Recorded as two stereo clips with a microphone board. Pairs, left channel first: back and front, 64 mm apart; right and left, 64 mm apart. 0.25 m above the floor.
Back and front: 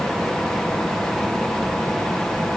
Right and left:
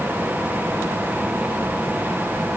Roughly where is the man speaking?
No man speaking in this recording.